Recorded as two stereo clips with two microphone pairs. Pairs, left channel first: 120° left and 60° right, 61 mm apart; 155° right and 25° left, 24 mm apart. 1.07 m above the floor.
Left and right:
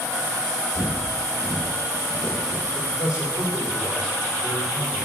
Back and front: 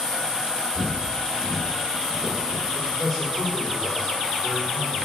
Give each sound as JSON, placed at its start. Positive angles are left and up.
{"t": 0.8, "sound": "footsteps", "azimuth_deg": 85, "distance_m": 3.5}
{"t": 2.8, "sound": "a man speaking", "azimuth_deg": 125, "distance_m": 4.0}